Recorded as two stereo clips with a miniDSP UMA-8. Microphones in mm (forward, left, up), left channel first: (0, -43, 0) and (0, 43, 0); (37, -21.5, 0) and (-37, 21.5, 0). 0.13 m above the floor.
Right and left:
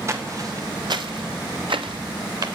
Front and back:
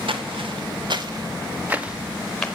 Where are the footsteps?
145° left, 1.5 m; by 2.5 s 50° left, 1.4 m.